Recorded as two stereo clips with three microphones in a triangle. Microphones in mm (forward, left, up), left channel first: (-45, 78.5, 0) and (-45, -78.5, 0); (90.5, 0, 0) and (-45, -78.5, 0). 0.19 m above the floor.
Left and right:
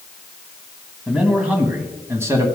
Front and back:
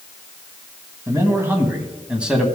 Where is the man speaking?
165° right, 1.4 m; by 2.5 s 70° right, 1.4 m.